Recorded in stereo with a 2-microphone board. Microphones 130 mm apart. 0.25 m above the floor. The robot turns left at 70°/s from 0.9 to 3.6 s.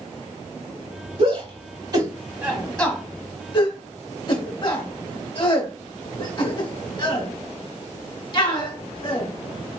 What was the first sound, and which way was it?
A shout, 45° right (ahead or behind).